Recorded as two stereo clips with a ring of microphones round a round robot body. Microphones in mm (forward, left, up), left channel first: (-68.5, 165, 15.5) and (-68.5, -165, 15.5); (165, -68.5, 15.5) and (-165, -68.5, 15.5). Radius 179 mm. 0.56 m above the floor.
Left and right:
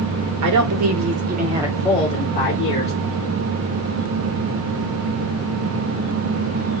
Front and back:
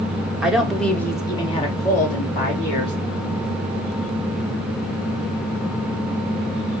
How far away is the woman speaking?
About 1.4 m.